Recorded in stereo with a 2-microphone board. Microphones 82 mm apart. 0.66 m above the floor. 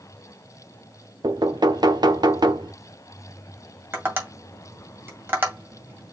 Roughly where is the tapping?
Right.